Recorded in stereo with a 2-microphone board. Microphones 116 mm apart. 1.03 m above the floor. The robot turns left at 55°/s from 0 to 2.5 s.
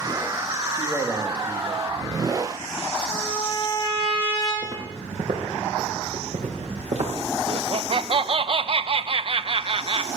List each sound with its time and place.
0.7 s a man speaking: 40° left, 1.7 m; by 1.8 s 20° right, 1.7 m
3.1 s a trumpet: 50° left (ahead or behind), 6.5 m
4.6 s footsteps: 80° right, 5.5 m; by 7.1 s 70° right (ahead or behind), 4 m
7.5 s laughter: 50° right (ahead or behind), 0.7 m